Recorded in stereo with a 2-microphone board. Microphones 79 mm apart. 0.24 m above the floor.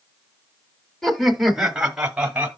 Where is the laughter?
Centre (ahead or behind), 1.1 m; by 2.5 s 15° right (ahead or behind), 1.2 m.